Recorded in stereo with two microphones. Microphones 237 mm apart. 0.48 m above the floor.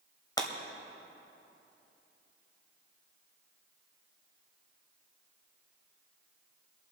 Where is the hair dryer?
I don't hear a hair dryer.